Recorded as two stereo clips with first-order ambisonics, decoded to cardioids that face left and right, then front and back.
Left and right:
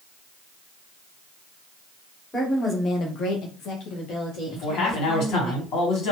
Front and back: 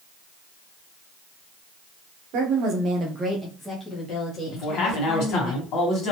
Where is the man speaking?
45° left, 1.5 m.